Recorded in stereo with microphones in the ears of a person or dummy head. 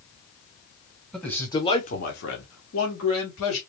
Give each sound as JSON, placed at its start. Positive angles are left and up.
{"t": 1.1, "sound": "a man speaking", "side_deg": 5, "distance_m": 1.3}